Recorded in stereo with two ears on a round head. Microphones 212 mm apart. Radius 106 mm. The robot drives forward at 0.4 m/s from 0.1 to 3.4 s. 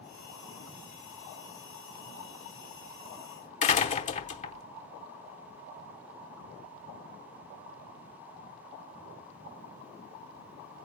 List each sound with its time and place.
3.6 s a door slam: 30° left (ahead or behind), 0.9 m